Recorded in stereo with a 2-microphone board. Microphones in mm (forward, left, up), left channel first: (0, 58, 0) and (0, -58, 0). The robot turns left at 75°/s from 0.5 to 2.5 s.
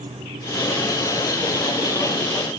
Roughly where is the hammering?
I don't hear hammering.